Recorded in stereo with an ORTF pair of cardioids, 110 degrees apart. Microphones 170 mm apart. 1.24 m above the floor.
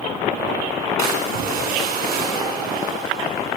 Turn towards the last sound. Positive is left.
turn(degrees=-70)